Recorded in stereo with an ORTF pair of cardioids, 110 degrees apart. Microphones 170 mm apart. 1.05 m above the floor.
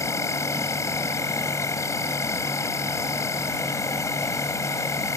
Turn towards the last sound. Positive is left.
turn(degrees=15)